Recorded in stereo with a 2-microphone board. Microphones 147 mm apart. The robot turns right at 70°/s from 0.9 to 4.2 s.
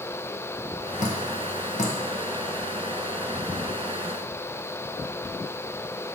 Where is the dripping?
55° left (ahead or behind), 1.3 m; by 2.0 s 50° left (ahead or behind), 1.3 m.